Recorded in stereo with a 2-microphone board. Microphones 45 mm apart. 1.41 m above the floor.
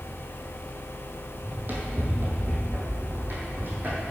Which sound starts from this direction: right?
Running footsteps, at 1.4 s.